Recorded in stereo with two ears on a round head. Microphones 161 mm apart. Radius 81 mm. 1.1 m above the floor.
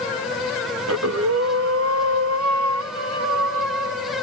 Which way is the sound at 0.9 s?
80° right.